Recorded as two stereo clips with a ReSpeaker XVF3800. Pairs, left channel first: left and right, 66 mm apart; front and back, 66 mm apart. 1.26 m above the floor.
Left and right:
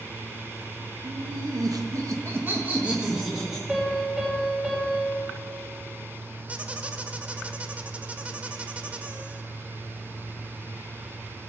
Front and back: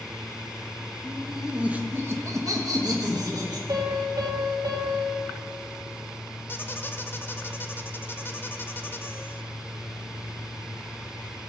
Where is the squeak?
30° right, 0.6 m.